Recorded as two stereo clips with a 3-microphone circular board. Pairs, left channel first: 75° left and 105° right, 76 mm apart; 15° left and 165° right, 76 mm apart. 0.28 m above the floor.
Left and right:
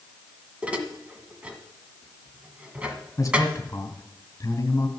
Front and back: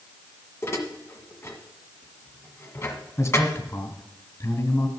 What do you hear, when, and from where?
0.6 s dishes clattering: 30° right, 1.4 m
3.2 s a man speaking: 50° left, 2 m